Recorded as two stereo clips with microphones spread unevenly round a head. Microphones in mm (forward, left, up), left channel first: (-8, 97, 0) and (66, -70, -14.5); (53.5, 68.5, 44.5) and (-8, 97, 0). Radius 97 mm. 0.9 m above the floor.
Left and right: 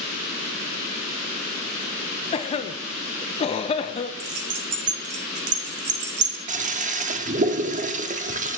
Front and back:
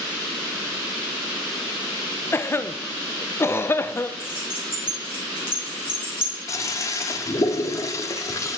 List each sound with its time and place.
2.3 s a cough: 55° left, 0.5 m
4.2 s keys jangling: 80° right, 1.2 m
6.5 s a toilet flushing: 15° right, 0.7 m